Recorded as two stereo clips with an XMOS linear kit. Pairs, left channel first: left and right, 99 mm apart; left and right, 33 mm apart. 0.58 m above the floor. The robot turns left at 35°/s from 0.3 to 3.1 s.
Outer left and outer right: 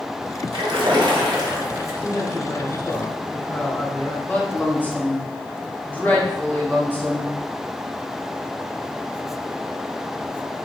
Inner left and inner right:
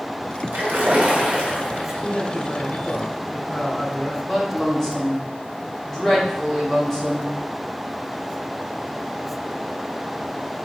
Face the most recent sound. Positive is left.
turn(degrees=15)  # may be behind; listen again after turning